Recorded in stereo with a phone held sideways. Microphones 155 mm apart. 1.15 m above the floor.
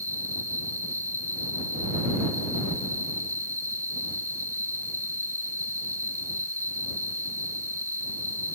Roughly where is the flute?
No flute in this recording.